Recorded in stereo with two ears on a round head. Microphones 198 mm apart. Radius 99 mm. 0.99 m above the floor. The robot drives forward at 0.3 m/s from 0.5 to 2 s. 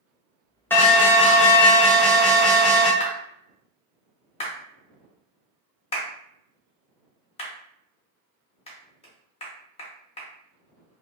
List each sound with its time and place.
0.7 s an alarm: 10° left (ahead or behind), 0.7 m; by 2.9 s 5° left (ahead or behind), 1.1 m
3.0 s a clap: 30° left (ahead or behind), 0.8 m